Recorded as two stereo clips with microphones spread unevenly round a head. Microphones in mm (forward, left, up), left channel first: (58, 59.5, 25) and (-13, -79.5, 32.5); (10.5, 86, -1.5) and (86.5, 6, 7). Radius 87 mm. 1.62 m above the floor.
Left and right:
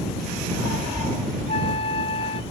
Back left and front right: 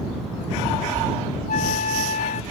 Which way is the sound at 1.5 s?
125° left.